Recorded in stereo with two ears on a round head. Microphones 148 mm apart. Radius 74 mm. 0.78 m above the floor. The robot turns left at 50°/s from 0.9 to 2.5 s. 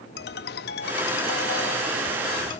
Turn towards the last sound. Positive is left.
turn(degrees=25)